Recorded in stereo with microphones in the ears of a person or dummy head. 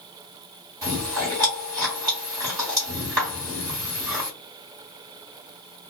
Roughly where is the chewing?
Centre.